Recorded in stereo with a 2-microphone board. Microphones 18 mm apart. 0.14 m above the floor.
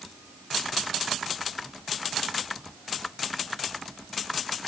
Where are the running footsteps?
No running footsteps in this recording.